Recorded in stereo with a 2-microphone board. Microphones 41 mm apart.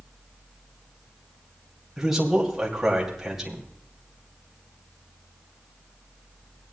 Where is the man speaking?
5° right (ahead or behind), 2.5 m.